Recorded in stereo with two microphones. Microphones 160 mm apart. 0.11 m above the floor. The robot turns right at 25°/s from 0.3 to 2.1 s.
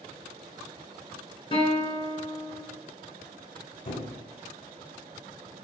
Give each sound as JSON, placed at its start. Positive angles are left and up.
{"t": 1.5, "sound": "a guitar", "side_deg": 35, "distance_m": 0.9}
{"t": 3.9, "sound": "a squeak", "side_deg": 65, "distance_m": 1.7}